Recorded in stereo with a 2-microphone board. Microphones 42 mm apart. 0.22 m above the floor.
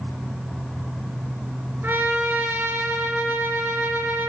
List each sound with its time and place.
1.8 s a trumpet: 55° right (ahead or behind), 2.5 m